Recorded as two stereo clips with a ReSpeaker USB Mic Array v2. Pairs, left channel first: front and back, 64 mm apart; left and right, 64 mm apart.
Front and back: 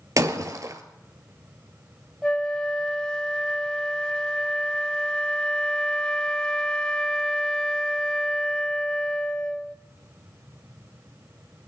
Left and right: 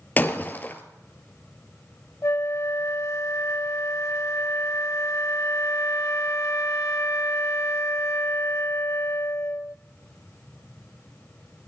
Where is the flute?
75° left, 0.6 m.